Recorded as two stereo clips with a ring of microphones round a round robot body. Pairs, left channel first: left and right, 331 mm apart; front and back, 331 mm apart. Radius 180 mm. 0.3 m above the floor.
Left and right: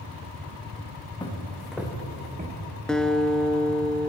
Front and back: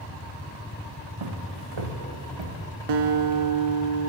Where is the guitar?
Straight behind, 0.8 m.